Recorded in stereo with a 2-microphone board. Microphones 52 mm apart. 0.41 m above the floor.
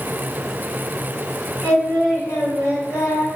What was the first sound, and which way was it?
Singing, 65° left (ahead or behind).